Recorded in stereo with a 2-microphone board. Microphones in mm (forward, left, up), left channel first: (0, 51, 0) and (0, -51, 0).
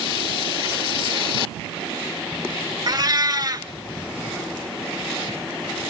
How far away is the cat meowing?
About 0.5 m.